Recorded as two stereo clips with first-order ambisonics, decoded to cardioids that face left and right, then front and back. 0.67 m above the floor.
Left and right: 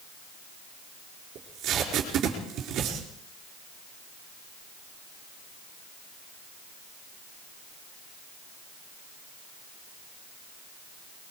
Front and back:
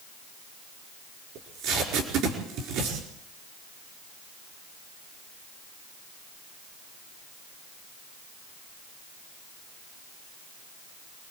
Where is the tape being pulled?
140° right, 5 m.